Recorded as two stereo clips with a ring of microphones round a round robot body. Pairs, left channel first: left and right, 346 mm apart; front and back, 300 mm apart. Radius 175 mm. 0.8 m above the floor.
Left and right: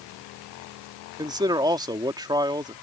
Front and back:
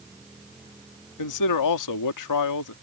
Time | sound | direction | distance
1.2 | a man speaking | 10° right | ?